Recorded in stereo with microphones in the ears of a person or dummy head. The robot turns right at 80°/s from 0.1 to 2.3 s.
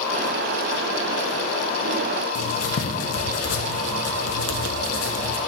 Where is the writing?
75° left (ahead or behind), 1.1 m.